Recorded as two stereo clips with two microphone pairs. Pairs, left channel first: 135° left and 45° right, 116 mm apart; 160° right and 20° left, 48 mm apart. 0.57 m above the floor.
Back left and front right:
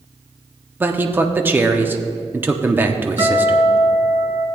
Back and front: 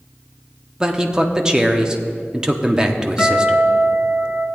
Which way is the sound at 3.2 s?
95° right.